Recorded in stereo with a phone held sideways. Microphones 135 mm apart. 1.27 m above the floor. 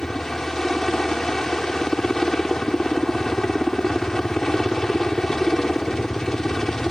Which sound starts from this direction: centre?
A helicopter, at 0.0 s.